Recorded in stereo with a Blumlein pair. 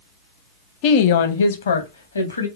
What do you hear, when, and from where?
0.8 s a woman speaking: 40° left, 0.7 m; by 2.5 s 75° left, 1.3 m